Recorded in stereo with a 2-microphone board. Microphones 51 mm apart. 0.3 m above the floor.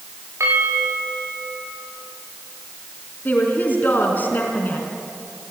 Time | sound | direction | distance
0.4 | a bell | 70° right (ahead or behind) | 6.5 m
3.2 | a woman speaking | 40° left (ahead or behind) | 3 m